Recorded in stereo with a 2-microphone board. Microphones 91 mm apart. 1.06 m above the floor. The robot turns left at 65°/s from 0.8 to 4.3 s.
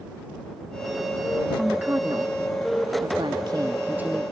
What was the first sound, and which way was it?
A woman speaking, 5° right.